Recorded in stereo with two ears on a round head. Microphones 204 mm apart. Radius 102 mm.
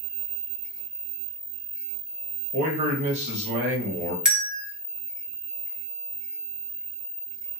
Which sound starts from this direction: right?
A man speaking, at 2.5 s.